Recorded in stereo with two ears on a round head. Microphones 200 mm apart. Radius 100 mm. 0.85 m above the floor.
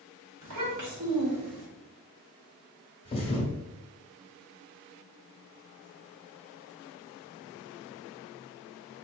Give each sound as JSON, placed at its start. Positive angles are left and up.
{"t": 0.4, "sound": "a child speaking", "side_deg": -75, "distance_m": 1.6}
{"t": 3.0, "sound": "a thud", "side_deg": 25, "distance_m": 1.1}